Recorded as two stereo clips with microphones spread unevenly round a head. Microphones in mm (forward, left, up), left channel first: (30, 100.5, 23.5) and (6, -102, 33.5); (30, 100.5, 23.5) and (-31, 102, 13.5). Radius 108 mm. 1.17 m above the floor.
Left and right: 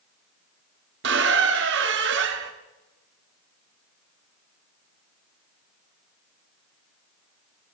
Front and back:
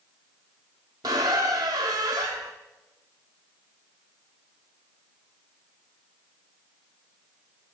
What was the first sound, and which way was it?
A squeak, 125° right.